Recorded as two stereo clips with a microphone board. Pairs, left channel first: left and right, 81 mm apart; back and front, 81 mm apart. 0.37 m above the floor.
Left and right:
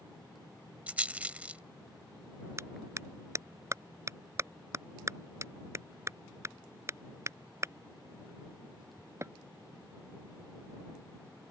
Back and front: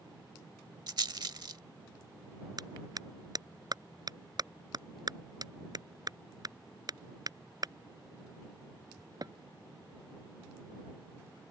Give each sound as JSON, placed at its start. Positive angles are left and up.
{"t": 0.9, "sound": "a rattle", "azimuth_deg": -20}
{"t": 2.6, "sound": "a clap", "azimuth_deg": -35}